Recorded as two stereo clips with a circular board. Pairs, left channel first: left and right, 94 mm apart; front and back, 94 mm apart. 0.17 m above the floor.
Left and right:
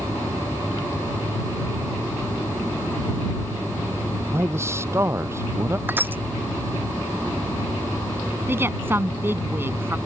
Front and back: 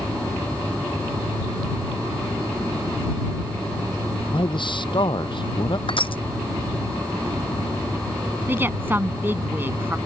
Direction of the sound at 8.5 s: 130° right.